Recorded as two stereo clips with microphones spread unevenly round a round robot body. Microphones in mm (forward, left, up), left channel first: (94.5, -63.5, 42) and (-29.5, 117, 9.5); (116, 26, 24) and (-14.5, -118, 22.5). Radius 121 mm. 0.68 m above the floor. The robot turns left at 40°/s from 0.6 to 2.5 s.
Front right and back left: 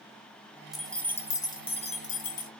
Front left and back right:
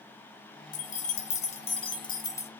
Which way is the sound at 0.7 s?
45° left.